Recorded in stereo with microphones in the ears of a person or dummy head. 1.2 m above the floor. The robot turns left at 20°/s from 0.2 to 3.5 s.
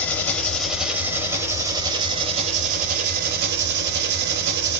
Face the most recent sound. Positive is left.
turn(degrees=-60)